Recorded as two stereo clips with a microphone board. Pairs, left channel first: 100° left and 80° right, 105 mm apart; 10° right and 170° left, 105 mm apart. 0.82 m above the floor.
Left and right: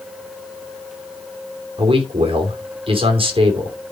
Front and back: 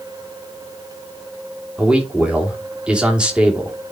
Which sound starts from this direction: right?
A man speaking, at 1.8 s.